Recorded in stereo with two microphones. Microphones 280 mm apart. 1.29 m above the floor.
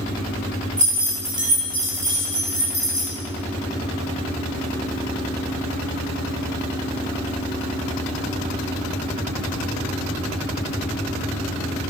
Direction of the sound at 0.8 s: 25° right (ahead or behind).